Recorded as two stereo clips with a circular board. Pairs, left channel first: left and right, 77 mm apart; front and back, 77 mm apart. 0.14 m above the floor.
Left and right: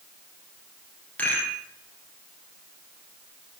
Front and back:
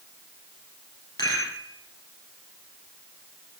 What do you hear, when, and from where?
1.2 s a rattle: 20° left, 2.5 m